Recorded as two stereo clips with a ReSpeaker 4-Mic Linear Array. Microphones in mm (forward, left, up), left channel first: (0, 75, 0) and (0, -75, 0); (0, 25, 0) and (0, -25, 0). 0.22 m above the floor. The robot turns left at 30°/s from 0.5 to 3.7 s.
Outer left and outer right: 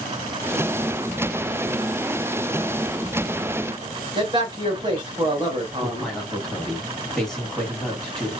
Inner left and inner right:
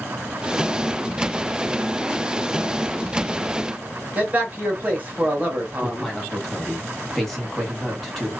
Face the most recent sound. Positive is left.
turn(degrees=5)  # may be behind; listen again after turning